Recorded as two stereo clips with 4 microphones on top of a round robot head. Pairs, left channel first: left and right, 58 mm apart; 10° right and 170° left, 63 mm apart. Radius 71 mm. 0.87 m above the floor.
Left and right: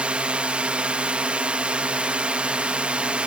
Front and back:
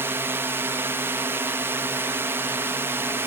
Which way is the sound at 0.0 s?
155° right.